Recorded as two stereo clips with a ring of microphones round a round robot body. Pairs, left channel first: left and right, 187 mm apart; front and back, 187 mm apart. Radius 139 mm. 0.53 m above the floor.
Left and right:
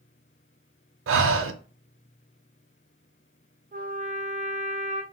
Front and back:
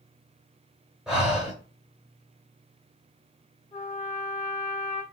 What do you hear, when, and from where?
1.1 s breathing: 95° right, 0.6 m
3.7 s a trumpet: 60° right, 1.3 m